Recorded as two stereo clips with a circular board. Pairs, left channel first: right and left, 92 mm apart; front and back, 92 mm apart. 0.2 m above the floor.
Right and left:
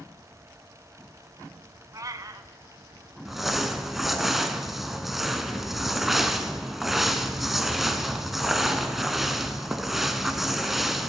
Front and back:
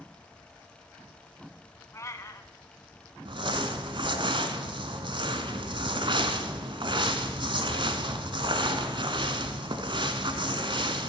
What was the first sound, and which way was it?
A cat meowing, 50° left.